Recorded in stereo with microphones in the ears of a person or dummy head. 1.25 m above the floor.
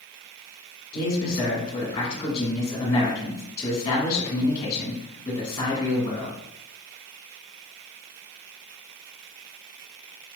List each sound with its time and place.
0.9 s a man speaking: 25° left (ahead or behind), 1.8 m